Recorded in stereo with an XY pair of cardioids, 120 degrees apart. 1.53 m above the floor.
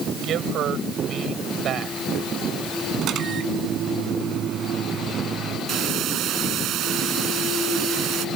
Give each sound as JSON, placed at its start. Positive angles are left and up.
{"t": 0.2, "sound": "a man speaking", "azimuth_deg": -65}
{"t": 3.0, "sound": "a microwave", "azimuth_deg": -60}
{"t": 5.7, "sound": "a hiss", "azimuth_deg": -65}